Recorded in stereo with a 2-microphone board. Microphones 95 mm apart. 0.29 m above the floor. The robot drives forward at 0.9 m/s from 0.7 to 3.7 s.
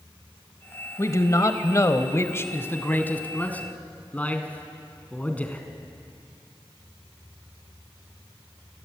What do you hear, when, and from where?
1.0 s a man speaking: 30° left (ahead or behind), 1.1 m; by 5.7 s 15° left (ahead or behind), 2 m